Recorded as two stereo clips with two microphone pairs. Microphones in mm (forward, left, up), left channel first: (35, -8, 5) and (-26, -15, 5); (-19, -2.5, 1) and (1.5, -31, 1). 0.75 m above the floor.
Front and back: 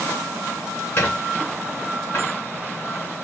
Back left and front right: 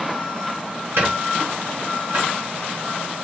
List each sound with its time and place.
1.0 s a squeak: 45° right, 1.3 m